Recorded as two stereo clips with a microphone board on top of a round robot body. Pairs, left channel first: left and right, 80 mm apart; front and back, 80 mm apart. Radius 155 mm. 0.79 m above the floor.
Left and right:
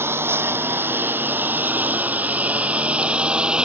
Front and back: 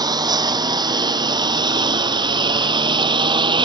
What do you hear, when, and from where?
0.0 s a lawn mower: 150° right; by 3.6 s 170° right